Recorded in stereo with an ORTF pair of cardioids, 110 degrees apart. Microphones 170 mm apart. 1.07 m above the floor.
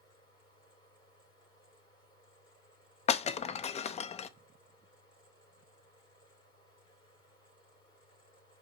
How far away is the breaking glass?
About 0.6 m.